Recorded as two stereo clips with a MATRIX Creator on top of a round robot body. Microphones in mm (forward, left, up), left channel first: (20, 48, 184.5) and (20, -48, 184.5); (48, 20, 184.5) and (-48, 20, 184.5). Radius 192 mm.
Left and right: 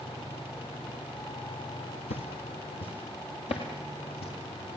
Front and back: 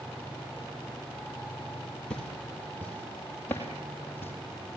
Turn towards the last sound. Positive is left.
turn(degrees=70)